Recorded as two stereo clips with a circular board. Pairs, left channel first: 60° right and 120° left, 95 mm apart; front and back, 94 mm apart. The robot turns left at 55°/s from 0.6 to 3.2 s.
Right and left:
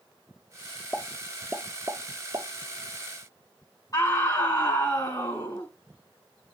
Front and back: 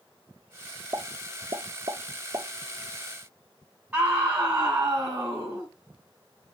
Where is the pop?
135° right, 0.7 m; by 2.5 s 140° left, 0.7 m.